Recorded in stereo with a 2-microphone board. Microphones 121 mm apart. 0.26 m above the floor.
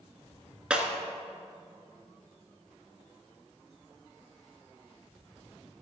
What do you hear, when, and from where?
0.7 s breaking glass: 5° right (ahead or behind), 1.2 m